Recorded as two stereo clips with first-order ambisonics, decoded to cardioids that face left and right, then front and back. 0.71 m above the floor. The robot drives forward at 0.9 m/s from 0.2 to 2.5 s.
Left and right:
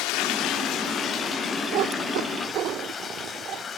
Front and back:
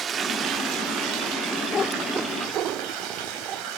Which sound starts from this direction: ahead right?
A cat meowing, at 1.7 s.